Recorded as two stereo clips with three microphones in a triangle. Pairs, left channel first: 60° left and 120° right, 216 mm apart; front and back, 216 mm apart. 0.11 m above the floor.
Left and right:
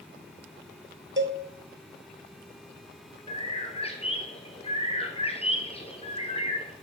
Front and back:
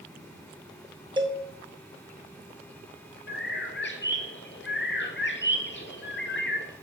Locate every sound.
1.2 s a cowbell: 115° right, 1.1 m
3.3 s a bird: straight ahead, 1.0 m